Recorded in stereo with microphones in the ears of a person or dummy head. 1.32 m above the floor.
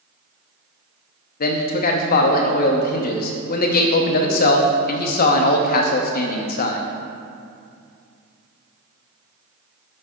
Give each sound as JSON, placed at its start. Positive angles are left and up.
{"t": 1.4, "sound": "a man speaking", "side_deg": 50, "distance_m": 0.6}